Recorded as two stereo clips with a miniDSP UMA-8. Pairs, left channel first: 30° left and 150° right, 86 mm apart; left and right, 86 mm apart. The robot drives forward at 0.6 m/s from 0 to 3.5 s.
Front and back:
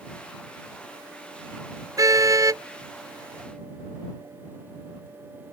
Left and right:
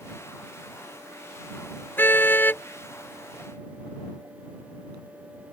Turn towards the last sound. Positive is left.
turn(degrees=160)